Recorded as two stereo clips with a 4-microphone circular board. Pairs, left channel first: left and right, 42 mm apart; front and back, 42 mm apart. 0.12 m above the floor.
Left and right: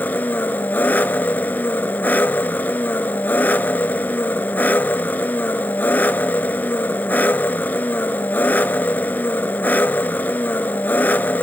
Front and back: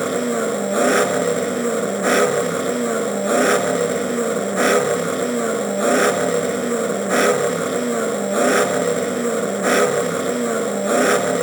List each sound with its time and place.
0.0 s an engine running: 90° left, 1.1 m